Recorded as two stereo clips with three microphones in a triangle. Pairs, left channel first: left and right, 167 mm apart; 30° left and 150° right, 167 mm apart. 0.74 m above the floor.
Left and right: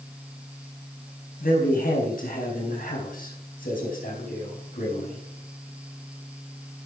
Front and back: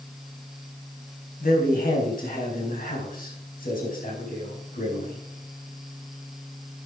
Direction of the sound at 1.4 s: 60° left.